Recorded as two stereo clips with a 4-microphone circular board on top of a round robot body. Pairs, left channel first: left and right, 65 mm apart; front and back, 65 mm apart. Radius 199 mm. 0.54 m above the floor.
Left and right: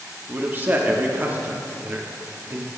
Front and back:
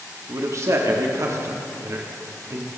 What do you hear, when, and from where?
0.3 s a man speaking: 145° right, 1.4 m